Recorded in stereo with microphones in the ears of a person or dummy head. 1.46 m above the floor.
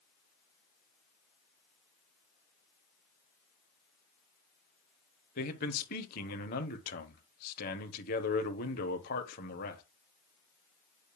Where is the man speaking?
50° left (ahead or behind), 1.0 m.